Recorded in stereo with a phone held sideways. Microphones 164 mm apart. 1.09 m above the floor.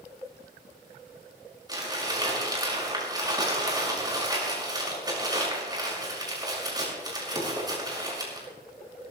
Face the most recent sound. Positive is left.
turn(degrees=-25)  # may be behind; listen again after turning